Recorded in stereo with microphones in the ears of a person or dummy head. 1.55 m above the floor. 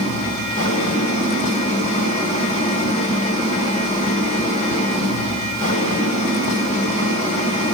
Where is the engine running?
45° left (ahead or behind), 3 m.